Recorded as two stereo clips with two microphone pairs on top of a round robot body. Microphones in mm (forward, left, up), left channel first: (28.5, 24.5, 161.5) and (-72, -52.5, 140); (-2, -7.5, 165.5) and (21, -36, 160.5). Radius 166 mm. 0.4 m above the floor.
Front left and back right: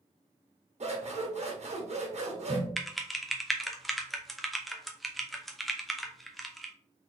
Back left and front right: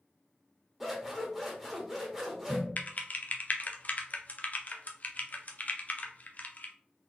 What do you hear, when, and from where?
0.8 s scissors: 135° right, 1.8 m
2.8 s typing on a keyboard: 140° left, 0.9 m